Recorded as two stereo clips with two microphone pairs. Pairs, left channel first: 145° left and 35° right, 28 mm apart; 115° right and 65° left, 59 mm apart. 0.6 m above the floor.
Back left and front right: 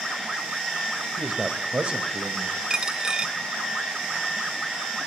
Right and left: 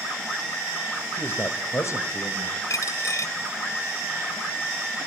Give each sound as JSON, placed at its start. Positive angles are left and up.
{"t": 1.2, "sound": "a man speaking", "azimuth_deg": -60, "distance_m": 2.5}
{"t": 2.7, "sound": "a dropped coin", "azimuth_deg": -95, "distance_m": 0.6}